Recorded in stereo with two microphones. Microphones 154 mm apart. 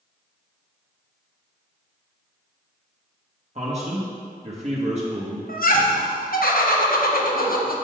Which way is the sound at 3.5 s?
45° right (ahead or behind).